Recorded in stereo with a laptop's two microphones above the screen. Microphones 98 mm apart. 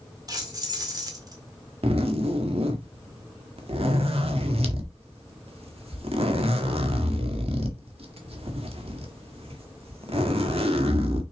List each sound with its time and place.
0.3 s keys jangling: 40° right (ahead or behind), 1.7 m
1.8 s a zipper: 70° right (ahead or behind), 1.7 m